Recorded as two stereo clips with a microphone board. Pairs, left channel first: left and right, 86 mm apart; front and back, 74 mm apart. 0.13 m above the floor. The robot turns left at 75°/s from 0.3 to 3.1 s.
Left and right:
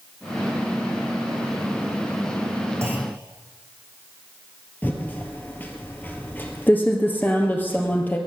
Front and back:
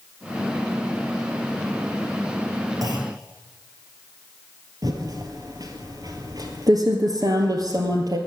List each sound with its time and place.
2.8 s a clunk: 150° right, 3 m; by 3.1 s 170° right, 3 m
4.8 s typing on a keyboard: 155° left, 2 m